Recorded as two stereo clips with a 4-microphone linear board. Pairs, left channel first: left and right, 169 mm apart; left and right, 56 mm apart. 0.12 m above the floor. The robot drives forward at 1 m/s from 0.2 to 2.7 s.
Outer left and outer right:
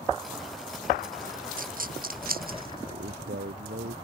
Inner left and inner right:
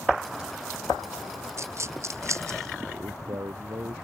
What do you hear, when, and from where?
1.6 s a dropped coin: 55° right (ahead or behind); by 2.8 s 60° right (ahead or behind)
2.9 s a man speaking: 70° right (ahead or behind)